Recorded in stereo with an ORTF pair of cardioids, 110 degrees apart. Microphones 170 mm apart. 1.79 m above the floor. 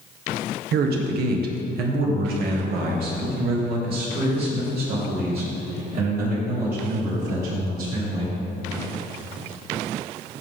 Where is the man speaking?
70° right, 1.5 m; by 8.4 s 60° right, 6 m.